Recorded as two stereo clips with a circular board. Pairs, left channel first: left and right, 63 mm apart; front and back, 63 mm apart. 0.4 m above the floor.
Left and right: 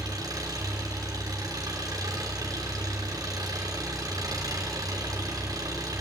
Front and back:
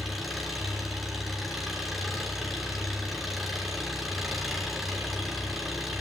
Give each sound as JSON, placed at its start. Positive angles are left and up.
{"t": 0.0, "sound": "an engine running", "azimuth_deg": -90, "distance_m": 4.0}